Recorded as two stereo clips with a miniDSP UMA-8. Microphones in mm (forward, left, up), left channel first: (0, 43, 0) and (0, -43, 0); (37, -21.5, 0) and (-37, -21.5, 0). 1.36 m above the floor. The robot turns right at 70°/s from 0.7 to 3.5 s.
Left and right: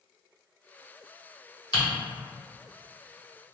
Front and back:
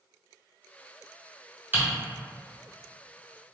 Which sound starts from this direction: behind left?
Typing on a keyboard, at 1.7 s.